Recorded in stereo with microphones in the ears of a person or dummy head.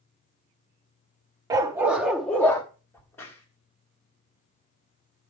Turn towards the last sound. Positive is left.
turn(degrees=15)  # may be behind; listen again after turning